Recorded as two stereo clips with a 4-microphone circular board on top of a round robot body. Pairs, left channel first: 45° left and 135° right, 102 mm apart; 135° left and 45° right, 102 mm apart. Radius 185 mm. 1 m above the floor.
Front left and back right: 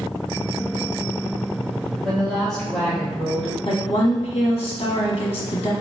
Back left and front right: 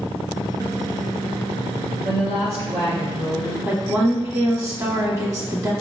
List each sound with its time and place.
2.0 s a woman speaking: 40° right, 2 m
3.6 s a woman speaking: 15° left, 1.3 m